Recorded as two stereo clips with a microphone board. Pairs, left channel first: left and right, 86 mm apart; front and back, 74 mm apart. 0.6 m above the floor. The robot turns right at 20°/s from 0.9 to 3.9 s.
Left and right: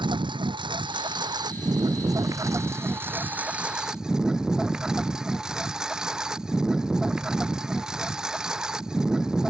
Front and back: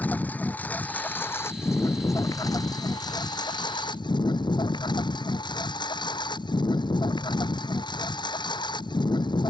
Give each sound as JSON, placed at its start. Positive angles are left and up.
{"t": 0.0, "sound": "a lawn mower", "azimuth_deg": -65}